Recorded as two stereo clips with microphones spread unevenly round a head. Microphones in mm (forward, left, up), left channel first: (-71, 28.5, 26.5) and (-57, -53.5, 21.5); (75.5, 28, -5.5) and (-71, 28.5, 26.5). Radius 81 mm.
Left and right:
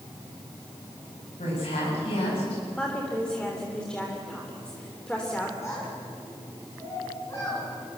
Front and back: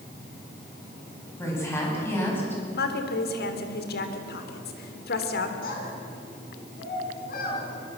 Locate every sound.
1.4 s a woman speaking: 70° left, 9.5 m; by 2.6 s 80° left, 9 m
2.7 s a woman speaking: 15° left, 3 m
5.6 s a child speaking: 25° left, 7.5 m